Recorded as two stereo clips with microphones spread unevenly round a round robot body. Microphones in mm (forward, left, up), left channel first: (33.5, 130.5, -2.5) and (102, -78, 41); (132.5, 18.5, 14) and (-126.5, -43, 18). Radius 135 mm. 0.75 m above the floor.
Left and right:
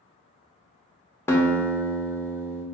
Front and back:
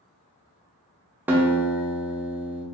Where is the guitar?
120° left, 0.6 m.